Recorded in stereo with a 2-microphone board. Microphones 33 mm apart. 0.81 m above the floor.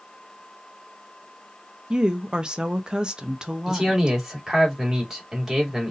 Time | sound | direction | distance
1.9 | a woman speaking | 25° right (ahead or behind) | 0.7 m
3.7 | a man speaking | 20° right (ahead or behind) | 2 m